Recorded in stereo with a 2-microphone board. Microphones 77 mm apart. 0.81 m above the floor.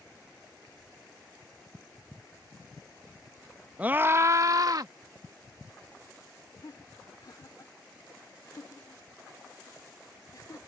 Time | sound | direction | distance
3.8 | a scream | 20° right (ahead or behind) | ?
6.6 | laughter | 50° left (ahead or behind) | ?